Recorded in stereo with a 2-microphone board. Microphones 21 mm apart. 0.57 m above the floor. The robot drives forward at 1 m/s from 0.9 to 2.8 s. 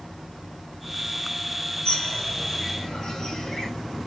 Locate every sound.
1.9 s a bird: 45° left (ahead or behind), 3.5 m; by 3.7 s 40° left (ahead or behind), 4.5 m